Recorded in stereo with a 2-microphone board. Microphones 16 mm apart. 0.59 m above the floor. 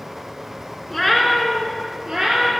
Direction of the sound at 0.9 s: 10° left (ahead or behind).